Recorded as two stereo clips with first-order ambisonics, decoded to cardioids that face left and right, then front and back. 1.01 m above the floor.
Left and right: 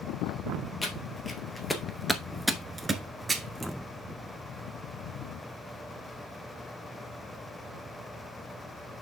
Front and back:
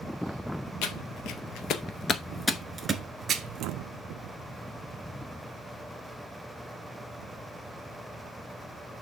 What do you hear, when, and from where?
0.8 s footsteps: 15° left, 1.9 m; by 3.7 s 160° right, 1.4 m